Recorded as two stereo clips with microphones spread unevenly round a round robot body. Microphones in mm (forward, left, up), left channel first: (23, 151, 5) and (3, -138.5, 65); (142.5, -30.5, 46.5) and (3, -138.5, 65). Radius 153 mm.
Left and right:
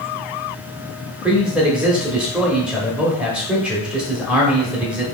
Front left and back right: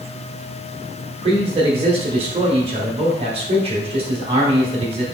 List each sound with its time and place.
1.2 s a man speaking: 165° left, 1.1 m